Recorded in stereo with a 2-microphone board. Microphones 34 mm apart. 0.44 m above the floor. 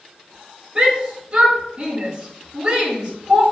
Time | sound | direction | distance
0.8 | a shout | 30° right (ahead or behind) | 4.5 m